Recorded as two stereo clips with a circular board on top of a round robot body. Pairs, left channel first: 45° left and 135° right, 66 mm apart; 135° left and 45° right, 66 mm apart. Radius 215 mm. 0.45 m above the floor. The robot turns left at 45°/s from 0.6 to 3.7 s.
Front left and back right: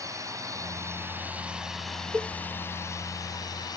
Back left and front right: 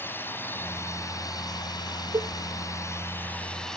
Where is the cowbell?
65° right; by 2.3 s 70° right.